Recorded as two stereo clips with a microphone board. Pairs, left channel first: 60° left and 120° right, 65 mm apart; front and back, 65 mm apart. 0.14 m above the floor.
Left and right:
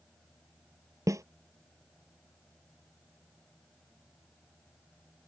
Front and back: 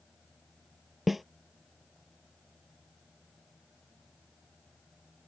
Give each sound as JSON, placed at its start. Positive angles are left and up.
{"t": 1.1, "sound": "a snare drum", "azimuth_deg": -90}